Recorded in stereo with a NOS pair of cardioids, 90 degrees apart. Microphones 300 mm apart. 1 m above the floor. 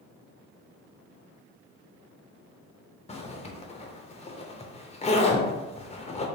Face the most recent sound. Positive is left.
turn(degrees=20)